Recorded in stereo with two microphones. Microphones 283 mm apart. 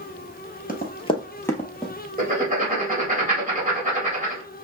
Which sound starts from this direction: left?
Running footsteps, at 0.7 s.